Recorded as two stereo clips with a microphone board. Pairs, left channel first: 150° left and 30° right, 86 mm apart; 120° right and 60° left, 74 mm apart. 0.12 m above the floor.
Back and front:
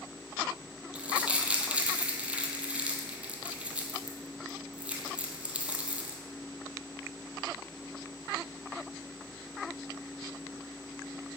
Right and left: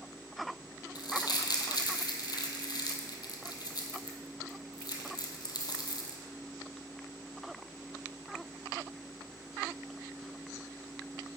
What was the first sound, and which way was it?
Crumpling, 105° right.